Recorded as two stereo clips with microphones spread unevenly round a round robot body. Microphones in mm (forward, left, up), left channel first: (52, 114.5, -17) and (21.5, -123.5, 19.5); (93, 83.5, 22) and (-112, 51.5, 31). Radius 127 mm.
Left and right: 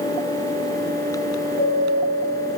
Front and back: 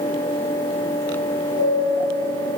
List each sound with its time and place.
1.6 s a chime: 30° left, 5.5 m